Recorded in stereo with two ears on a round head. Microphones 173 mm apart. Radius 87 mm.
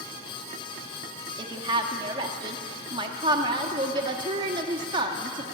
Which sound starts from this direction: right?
A woman speaking, at 1.4 s.